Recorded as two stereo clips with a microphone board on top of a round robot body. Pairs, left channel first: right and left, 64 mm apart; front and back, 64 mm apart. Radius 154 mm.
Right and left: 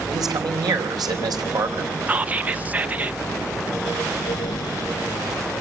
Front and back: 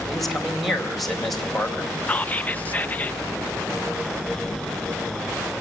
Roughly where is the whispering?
Ahead left.